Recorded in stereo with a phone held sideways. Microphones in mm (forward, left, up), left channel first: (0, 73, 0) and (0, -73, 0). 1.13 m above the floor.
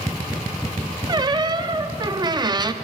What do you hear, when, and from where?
1.1 s a squeak: 30° right (ahead or behind), 0.6 m